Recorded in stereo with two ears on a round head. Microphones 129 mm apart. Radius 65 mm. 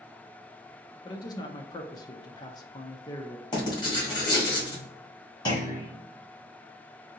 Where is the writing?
30° left (ahead or behind), 1.8 m.